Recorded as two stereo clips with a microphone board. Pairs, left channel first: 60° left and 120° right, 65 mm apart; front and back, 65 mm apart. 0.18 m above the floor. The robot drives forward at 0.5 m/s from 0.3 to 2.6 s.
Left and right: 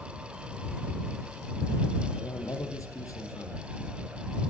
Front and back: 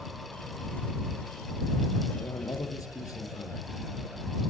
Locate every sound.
2.2 s a man speaking: 30° left, 4.5 m